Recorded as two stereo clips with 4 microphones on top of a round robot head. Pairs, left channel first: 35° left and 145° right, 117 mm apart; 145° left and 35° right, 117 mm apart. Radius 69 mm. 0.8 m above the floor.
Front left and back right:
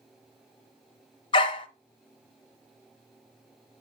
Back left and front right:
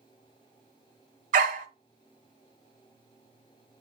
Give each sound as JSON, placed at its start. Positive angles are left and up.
{"t": 1.3, "sound": "a dog barking", "azimuth_deg": -15, "distance_m": 1.1}